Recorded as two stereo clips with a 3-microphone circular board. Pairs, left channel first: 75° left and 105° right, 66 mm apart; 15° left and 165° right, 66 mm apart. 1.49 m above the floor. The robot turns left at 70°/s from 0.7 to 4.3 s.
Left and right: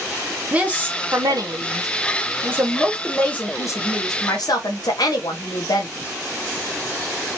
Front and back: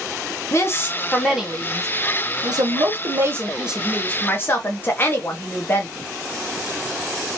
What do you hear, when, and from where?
0.5 s a woman speaking: 35° right, 1.3 m; by 5.9 s 70° left, 1.3 m